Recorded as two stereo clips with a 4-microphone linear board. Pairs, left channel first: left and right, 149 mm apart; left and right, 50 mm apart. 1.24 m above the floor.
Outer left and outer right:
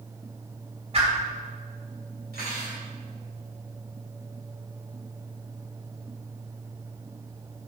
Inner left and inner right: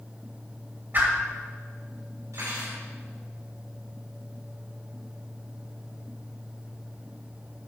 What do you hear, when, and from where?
0.9 s a whoosh: 40° right (ahead or behind), 2.5 m
2.3 s cutlery clinking: 80° right, 4 m